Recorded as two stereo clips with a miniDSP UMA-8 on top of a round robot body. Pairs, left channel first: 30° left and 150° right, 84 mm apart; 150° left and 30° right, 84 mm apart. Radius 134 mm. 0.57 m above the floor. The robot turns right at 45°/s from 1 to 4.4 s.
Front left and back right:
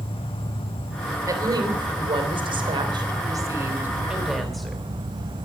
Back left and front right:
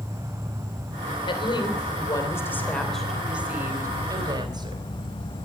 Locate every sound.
0.0 s an insect: 25° left, 1.1 m; by 5.5 s straight behind, 1.1 m
1.2 s a woman speaking: 160° left, 3 m; by 4.8 s 60° right, 3 m